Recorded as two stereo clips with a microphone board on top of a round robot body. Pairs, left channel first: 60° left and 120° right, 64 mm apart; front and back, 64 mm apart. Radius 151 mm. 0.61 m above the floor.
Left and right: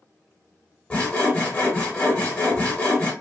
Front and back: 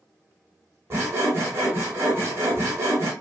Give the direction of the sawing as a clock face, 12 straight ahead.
8 o'clock.